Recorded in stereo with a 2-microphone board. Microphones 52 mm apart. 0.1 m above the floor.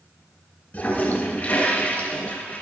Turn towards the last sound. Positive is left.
turn(degrees=30)  # may be behind; listen again after turning